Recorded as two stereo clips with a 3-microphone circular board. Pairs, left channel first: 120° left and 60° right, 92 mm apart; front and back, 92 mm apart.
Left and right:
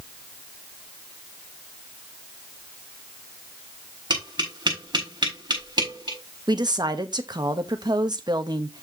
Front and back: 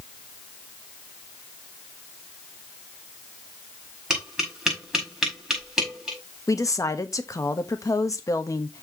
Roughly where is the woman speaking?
Ahead right.